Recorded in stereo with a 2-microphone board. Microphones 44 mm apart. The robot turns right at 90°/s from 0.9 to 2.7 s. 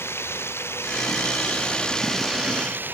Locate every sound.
0.0 s running water: 65° left; by 3.0 s 135° right